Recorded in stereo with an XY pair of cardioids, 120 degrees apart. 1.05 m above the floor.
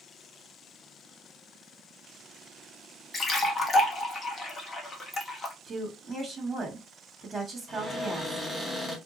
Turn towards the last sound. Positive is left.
turn(degrees=0)